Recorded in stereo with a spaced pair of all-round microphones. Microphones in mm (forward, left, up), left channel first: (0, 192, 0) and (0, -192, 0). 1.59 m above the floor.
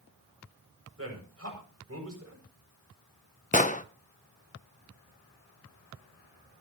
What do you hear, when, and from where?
1.0 s a man speaking: 35° right (ahead or behind), 7 m
3.5 s an explosion: 20° left (ahead or behind), 0.7 m